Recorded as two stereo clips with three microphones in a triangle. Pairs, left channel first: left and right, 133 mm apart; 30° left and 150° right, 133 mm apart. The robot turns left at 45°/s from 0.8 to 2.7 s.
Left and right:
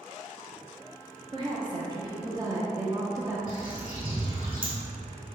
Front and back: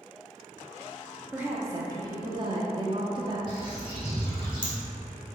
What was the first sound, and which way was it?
A woman speaking, 80° right.